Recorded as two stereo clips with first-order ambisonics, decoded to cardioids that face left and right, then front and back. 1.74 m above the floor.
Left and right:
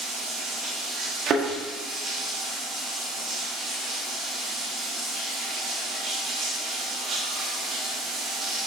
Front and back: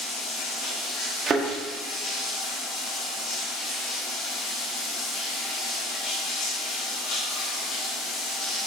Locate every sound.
0.0 s running water: 30° right, 4.5 m
1.3 s a thud: 120° right, 1.4 m